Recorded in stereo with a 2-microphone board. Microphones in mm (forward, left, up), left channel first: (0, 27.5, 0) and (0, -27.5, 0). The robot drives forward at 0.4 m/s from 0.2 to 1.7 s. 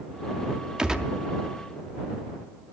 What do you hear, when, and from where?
0.8 s a gunshot: 15° right (ahead or behind), 0.6 m; by 1.1 s 10° right (ahead or behind), 0.7 m